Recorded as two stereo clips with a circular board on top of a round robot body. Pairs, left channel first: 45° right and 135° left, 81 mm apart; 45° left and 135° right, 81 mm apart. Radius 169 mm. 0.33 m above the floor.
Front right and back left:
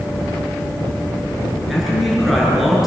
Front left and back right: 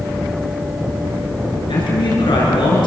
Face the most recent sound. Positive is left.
turn(degrees=45)